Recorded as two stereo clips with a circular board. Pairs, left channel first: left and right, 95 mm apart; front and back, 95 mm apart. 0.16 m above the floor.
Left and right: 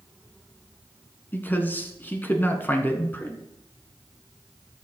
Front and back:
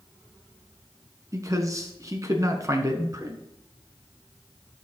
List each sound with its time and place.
1.3 s a man speaking: 150° left, 1.3 m